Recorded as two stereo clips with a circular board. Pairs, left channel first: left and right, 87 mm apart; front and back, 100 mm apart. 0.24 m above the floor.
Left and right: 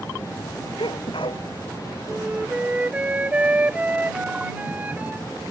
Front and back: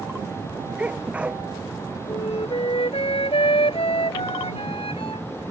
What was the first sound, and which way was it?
A sneeze, 100° left.